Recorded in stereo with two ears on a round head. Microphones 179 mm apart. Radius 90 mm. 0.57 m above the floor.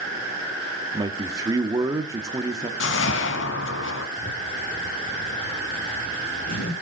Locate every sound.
0.9 s a man speaking: 20° right (ahead or behind), 1.2 m
2.8 s a whoosh: 65° left (ahead or behind), 1.4 m
4.2 s a zipper: 50° left (ahead or behind), 9 m